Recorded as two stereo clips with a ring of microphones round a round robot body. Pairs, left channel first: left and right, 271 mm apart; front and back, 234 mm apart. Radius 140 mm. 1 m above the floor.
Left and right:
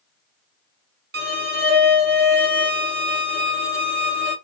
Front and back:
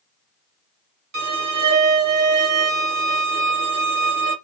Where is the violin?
140° right, 1.5 m.